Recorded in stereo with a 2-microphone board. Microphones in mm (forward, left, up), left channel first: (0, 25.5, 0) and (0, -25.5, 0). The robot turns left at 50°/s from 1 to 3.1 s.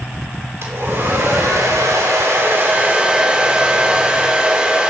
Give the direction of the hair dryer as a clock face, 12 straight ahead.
2 o'clock.